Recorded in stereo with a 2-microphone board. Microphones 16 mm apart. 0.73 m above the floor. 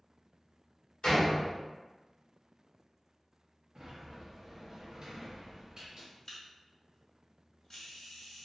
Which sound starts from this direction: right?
A sliding door, at 3.8 s.